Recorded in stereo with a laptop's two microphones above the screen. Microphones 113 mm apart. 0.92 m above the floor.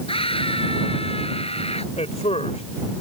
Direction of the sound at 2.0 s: 80° left.